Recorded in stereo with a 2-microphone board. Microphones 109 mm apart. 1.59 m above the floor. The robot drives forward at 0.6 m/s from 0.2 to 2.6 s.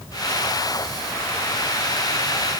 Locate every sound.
Only background noise.